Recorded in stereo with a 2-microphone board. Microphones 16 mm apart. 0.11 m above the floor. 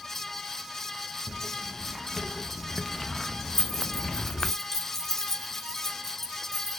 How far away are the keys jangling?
About 2 m.